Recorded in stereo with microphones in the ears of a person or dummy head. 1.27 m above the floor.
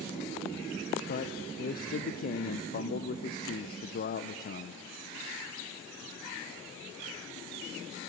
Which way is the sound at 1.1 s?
45° left (ahead or behind).